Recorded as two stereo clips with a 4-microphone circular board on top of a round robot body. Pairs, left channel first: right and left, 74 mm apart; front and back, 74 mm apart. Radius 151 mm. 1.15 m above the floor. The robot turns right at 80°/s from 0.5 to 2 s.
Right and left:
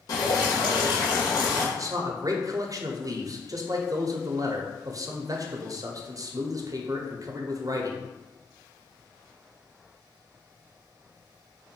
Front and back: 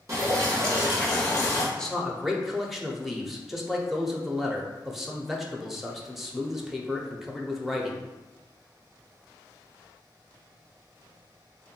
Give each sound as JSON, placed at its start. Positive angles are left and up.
{"t": 0.1, "sound": "dripping", "azimuth_deg": -130, "distance_m": 0.7}
{"t": 1.8, "sound": "a man speaking", "azimuth_deg": 75, "distance_m": 0.8}